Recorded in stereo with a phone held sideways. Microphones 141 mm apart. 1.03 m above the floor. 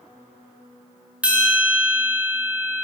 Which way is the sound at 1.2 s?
10° right (ahead or behind).